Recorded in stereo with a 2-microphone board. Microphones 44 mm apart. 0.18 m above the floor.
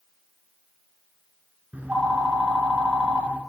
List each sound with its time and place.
1.7 s a phone ringing: 35° right (ahead or behind), 1.4 m